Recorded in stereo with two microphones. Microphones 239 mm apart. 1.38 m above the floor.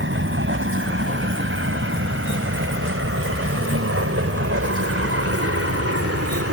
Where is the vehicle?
55° right (ahead or behind); by 6.5 s 75° right (ahead or behind).